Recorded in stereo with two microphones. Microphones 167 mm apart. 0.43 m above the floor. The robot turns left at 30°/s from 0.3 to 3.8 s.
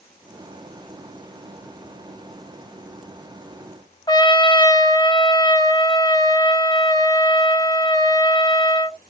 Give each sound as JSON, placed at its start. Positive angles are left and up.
{"t": 4.1, "sound": "a trumpet", "side_deg": 25, "distance_m": 0.8}